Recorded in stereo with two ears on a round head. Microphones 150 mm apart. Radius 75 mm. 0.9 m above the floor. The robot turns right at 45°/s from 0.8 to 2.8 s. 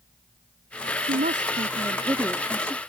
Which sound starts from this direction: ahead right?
A woman speaking, at 1.0 s.